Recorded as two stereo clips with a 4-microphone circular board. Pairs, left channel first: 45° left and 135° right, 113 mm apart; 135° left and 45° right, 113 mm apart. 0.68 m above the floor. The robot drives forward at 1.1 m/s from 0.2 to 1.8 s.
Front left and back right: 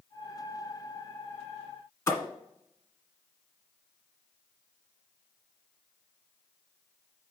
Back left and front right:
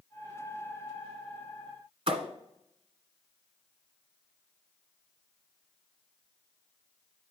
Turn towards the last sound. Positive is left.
turn(degrees=-20)